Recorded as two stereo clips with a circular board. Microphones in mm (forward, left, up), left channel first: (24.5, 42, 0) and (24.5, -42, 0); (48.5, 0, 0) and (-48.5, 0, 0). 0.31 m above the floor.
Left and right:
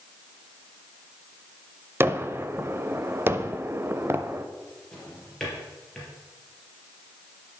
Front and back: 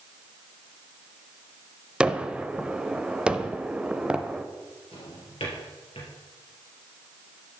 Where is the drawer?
10° left, 3.5 m.